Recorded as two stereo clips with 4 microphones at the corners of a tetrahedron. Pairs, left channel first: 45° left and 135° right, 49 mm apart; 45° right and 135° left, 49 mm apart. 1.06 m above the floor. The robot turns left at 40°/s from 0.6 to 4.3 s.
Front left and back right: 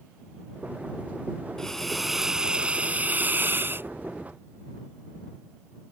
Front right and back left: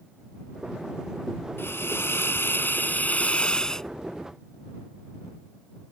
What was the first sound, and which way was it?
A hiss, 30° right.